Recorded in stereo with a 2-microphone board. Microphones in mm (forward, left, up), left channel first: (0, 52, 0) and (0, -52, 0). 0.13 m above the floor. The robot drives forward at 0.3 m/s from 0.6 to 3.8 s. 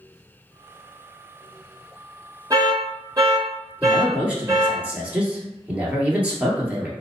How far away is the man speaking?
About 1.9 m.